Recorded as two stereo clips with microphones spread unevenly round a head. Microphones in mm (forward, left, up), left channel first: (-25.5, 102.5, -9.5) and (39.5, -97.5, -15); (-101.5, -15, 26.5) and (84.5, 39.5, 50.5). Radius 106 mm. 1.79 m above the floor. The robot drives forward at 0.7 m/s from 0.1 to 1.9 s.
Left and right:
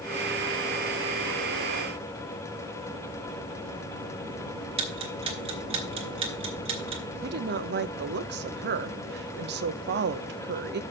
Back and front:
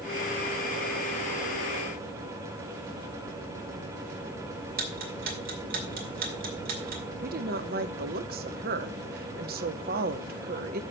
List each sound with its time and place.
4.8 s ticking: 15° right, 2 m
7.2 s a woman speaking: 30° right, 0.8 m